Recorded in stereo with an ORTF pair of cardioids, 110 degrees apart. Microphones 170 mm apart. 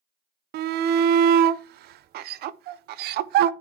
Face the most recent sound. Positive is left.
turn(degrees=-70)